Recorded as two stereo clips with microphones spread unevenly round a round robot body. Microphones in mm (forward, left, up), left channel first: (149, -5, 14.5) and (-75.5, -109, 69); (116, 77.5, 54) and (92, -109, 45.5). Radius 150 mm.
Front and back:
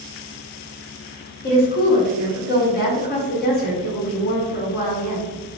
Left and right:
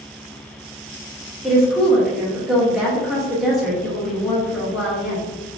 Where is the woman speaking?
10° right, 1.2 m.